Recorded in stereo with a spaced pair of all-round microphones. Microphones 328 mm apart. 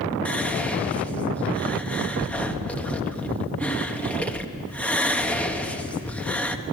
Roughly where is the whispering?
Centre.